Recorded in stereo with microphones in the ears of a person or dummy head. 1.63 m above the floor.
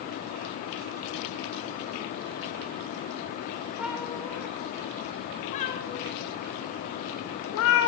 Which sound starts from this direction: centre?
A cat meowing, at 3.8 s.